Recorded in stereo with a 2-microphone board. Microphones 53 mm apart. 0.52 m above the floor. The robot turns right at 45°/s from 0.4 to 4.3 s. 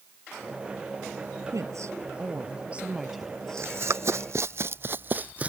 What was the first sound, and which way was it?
A woman speaking, 80° right.